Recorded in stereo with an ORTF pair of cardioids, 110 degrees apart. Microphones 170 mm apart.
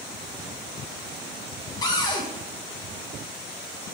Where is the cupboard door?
25° left, 1.6 m.